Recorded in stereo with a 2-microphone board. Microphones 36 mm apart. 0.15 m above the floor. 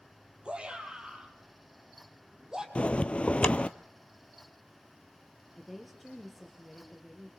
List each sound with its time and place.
0.5 s a shout: 30° right (ahead or behind), 6 m; by 2.6 s 15° right (ahead or behind), 6.5 m
2.8 s a bell: 35° left (ahead or behind), 0.9 m
5.5 s a woman speaking: centre (ahead or behind), 4.5 m